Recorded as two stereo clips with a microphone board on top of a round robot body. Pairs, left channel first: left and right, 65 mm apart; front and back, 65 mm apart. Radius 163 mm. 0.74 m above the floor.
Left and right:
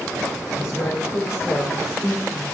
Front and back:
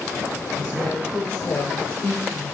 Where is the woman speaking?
60° left, 3.5 m; by 2.5 s 45° left, 2.0 m.